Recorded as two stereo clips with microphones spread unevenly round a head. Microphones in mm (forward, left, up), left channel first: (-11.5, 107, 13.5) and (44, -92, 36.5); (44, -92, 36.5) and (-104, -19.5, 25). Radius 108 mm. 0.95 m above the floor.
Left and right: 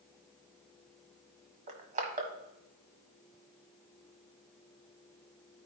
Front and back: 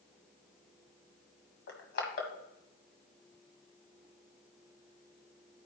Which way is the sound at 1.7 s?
25° right.